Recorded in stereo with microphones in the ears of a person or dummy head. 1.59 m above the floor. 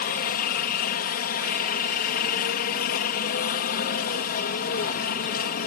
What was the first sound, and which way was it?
A helicopter, 55° left (ahead or behind).